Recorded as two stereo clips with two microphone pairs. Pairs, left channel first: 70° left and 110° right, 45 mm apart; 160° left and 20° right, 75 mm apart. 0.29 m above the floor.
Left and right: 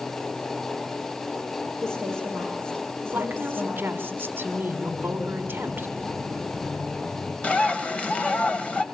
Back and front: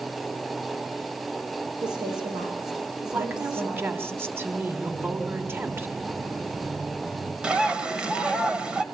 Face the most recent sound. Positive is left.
turn(degrees=40)